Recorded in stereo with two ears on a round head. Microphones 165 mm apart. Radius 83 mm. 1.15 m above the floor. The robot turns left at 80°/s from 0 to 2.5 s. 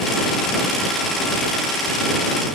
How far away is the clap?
No clap in this recording.